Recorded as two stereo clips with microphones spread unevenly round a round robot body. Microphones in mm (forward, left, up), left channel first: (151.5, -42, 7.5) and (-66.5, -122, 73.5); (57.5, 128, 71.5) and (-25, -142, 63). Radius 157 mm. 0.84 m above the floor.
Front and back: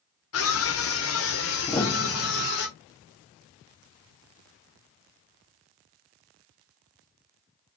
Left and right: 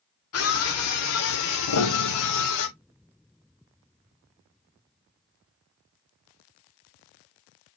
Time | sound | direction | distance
0.3 | a scream | 35° left | 2.5 m
1.7 | a piano | 110° left | 1.3 m